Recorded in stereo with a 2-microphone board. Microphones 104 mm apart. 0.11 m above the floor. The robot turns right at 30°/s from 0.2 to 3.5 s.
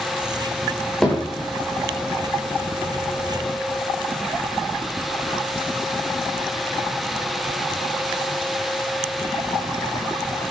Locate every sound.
1.0 s hammering: 5° left (ahead or behind), 6.5 m; by 1.5 s 20° left (ahead or behind), 6.5 m